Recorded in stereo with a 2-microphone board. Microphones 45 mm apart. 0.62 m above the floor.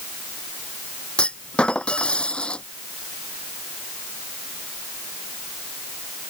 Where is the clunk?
20° left (ahead or behind).